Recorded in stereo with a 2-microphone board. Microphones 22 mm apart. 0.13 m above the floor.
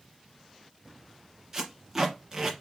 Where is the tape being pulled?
20° right (ahead or behind), 1.9 m.